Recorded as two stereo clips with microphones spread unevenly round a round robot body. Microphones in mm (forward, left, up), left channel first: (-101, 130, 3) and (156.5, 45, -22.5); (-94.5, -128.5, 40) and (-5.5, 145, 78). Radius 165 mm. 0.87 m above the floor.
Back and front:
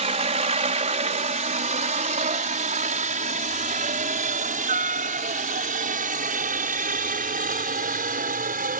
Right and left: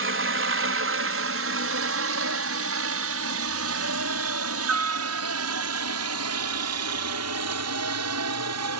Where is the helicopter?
40° left.